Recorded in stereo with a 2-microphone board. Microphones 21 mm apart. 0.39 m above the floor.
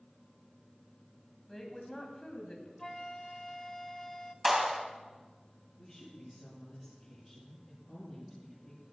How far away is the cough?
I don't hear a cough.